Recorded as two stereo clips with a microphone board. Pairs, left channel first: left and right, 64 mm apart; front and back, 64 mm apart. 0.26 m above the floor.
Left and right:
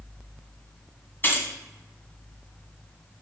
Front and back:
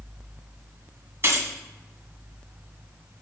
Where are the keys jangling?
140° left, 1.6 m.